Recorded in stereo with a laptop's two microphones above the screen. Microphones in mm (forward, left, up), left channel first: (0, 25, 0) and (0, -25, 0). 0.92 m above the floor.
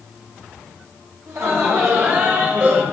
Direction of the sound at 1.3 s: 55° right (ahead or behind).